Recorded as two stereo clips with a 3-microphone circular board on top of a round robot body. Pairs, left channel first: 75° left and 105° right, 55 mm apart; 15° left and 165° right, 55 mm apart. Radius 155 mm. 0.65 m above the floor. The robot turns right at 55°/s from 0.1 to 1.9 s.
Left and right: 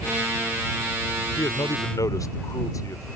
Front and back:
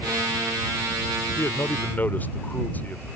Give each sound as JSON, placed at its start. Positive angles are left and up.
{"t": 1.4, "sound": "a man speaking", "azimuth_deg": 40}